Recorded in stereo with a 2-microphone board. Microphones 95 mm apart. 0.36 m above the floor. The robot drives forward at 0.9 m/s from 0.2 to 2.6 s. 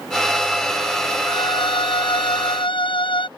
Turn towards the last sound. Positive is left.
turn(degrees=60)  # may be behind; listen again after turning